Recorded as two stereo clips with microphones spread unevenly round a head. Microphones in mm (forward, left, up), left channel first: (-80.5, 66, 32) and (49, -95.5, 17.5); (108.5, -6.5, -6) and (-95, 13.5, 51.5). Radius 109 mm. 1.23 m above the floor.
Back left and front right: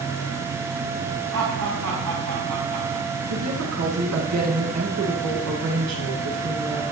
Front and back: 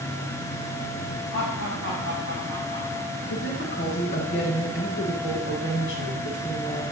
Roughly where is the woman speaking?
Ahead right.